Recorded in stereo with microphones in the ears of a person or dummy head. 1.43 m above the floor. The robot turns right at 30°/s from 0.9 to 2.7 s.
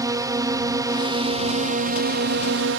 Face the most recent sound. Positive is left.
turn(degrees=-110)